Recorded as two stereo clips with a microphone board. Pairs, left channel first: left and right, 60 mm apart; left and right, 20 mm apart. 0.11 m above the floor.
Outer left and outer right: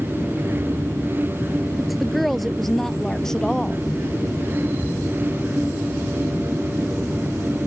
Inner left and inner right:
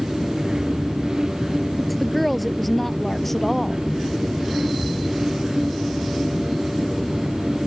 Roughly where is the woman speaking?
Centre.